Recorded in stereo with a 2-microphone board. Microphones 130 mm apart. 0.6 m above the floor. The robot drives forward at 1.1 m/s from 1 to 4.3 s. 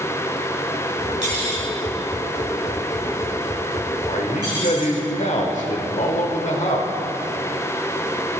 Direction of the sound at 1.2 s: 65° right (ahead or behind).